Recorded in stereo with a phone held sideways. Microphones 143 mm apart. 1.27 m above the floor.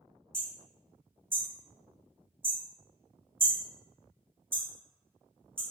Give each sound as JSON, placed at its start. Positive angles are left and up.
{"t": 0.3, "sound": "hammering", "side_deg": -15, "distance_m": 0.9}